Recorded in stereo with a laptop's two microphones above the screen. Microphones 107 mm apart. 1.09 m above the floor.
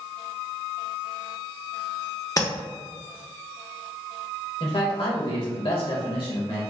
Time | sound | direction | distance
2.4 | tapping | 30° left (ahead or behind) | 0.6 m
4.6 | a man speaking | 55° left (ahead or behind) | 1.5 m